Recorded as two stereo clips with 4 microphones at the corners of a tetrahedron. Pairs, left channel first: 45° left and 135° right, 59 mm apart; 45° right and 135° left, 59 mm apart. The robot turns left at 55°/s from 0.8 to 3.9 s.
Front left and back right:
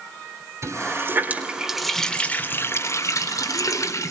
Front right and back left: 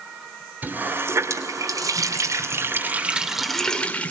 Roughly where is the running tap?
Behind.